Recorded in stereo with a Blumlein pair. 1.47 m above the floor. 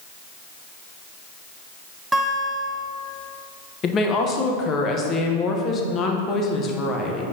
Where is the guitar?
10° right, 0.8 m.